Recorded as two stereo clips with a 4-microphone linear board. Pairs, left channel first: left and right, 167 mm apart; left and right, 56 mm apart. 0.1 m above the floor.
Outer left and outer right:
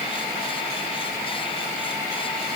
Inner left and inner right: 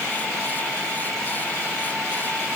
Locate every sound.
Only background noise.